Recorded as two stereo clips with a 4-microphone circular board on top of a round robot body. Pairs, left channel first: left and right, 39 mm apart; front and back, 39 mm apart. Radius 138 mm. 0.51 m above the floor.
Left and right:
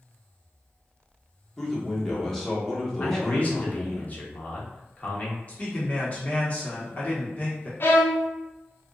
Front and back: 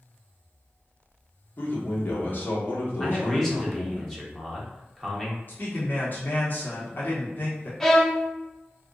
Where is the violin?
80° left, 0.9 m.